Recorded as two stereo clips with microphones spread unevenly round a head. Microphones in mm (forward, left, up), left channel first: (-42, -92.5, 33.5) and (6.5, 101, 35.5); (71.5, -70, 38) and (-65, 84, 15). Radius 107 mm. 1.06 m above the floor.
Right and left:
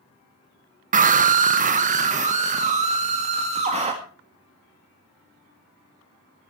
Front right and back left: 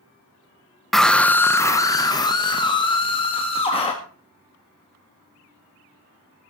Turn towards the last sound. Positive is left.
turn(degrees=15)